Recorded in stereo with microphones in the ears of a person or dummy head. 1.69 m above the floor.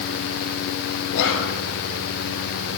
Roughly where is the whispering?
Left.